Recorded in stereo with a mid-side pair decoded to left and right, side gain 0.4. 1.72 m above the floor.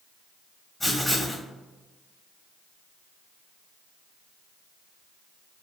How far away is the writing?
About 1.5 m.